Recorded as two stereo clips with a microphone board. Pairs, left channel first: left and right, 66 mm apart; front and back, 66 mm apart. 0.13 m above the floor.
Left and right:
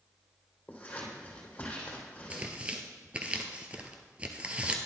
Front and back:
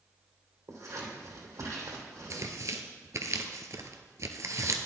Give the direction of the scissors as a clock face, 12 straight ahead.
7 o'clock.